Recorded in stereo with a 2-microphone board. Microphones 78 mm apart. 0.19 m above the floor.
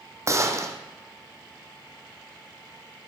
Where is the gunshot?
35° right (ahead or behind), 2.5 m.